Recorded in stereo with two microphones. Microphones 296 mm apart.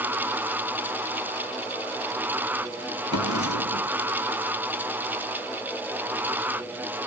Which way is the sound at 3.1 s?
65° left (ahead or behind).